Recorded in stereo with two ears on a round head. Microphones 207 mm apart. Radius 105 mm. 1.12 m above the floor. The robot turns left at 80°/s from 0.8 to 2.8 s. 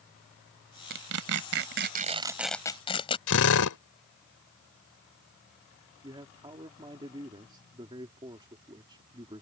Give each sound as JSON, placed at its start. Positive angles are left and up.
{"t": 0.9, "sound": "tearing paper", "side_deg": -50}
{"t": 3.3, "sound": "a drill", "side_deg": 65}
{"t": 6.0, "sound": "a man speaking", "side_deg": -20}